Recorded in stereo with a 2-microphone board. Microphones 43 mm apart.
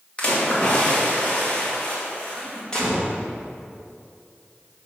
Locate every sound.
0.2 s a splash: 25° left (ahead or behind), 2 m
2.7 s a gunshot: 20° left (ahead or behind), 2.0 m